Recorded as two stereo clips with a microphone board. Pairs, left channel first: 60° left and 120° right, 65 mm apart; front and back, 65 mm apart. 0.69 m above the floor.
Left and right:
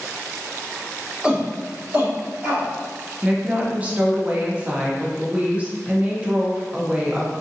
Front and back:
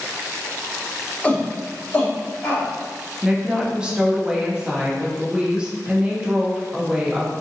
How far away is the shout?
About 0.7 m.